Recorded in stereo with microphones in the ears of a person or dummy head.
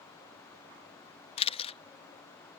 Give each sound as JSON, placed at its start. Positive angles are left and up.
{"t": 1.4, "sound": "a camera shutter", "side_deg": 35}